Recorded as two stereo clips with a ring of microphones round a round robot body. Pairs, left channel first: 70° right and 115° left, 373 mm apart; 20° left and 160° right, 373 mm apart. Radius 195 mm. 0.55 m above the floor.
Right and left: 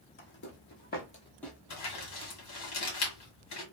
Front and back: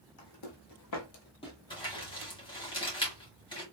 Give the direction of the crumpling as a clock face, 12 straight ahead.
2 o'clock.